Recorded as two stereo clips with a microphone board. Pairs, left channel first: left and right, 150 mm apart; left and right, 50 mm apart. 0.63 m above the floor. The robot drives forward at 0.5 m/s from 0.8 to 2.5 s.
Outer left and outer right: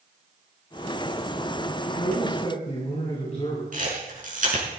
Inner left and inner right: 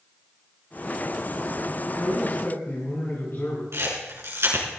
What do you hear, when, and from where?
1.9 s a man speaking: 50° left (ahead or behind), 7 m
3.7 s a camera shutter: 60° right (ahead or behind), 5 m